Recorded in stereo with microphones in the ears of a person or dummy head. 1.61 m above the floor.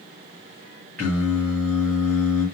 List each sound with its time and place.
1.0 s singing: 10° left (ahead or behind), 1.9 m